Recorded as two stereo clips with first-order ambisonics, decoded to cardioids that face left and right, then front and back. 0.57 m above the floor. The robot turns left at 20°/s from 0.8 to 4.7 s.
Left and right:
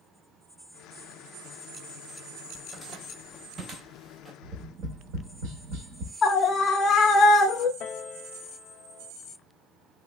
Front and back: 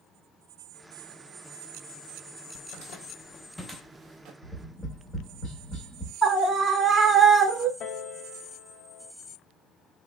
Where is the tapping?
60° right, 0.8 m; by 6.1 s 65° right, 0.8 m.